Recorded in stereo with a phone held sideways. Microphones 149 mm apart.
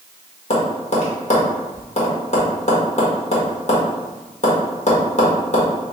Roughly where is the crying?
I don't hear crying.